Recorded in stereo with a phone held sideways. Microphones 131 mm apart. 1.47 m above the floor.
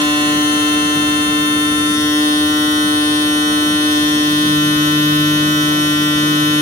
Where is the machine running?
20° left (ahead or behind), 3 m.